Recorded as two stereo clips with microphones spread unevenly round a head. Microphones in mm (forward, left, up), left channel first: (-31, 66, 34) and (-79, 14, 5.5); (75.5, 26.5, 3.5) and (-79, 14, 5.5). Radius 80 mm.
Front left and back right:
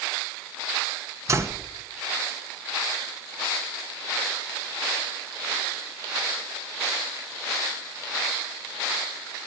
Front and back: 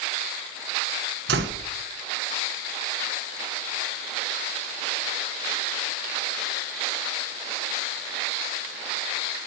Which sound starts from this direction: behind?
A door slam, at 1.3 s.